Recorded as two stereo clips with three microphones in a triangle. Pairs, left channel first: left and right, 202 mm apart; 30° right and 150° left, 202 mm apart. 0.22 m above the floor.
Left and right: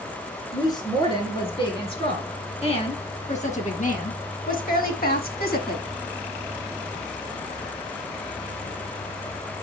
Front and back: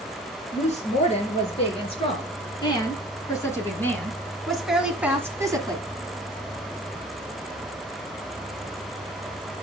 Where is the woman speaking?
20° left, 3.5 m; by 5.8 s 90° left, 1.6 m.